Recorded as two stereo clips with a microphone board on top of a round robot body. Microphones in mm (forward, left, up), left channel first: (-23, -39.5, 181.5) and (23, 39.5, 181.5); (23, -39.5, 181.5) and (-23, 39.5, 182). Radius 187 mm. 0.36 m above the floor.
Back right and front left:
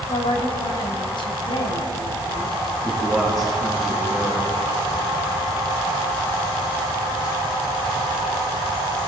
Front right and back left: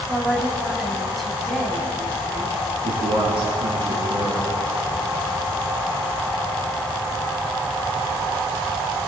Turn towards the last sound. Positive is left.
turn(degrees=150)